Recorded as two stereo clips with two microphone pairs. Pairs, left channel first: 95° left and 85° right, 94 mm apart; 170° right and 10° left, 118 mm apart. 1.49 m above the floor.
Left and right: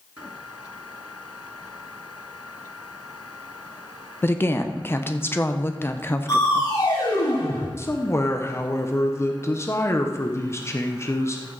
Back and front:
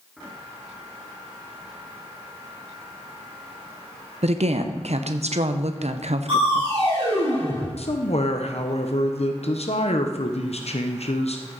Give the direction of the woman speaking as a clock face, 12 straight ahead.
11 o'clock.